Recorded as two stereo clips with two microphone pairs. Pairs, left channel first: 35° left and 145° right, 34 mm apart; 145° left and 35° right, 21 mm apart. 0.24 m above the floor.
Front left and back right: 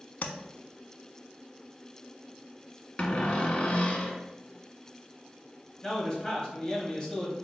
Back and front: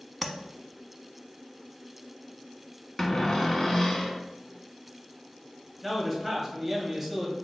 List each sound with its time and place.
0.2 s tapping: 65° left, 0.6 m
3.0 s a cupboard door: 85° left, 0.8 m
5.8 s a man speaking: 40° left, 1.4 m